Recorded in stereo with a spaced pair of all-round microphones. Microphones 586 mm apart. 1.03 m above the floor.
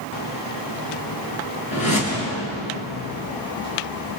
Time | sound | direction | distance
1.7 | a whoosh | 70° left (ahead or behind) | 6.5 m